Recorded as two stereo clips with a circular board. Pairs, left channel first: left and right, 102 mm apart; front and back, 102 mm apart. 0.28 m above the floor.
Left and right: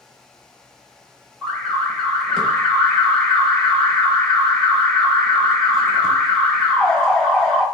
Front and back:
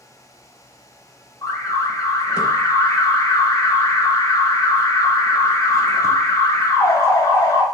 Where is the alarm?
15° left, 0.9 m.